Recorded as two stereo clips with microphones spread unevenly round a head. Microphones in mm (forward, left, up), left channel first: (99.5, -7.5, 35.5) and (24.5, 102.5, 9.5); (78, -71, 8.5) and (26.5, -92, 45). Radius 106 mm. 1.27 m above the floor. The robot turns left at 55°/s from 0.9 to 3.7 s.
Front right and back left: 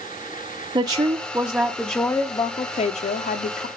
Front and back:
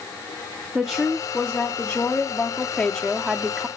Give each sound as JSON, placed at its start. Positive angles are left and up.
{"t": 0.8, "sound": "a woman speaking", "azimuth_deg": 90, "distance_m": 0.7}